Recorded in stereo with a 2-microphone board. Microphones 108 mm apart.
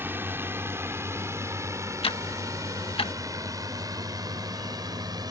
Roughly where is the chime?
I don't hear a chime.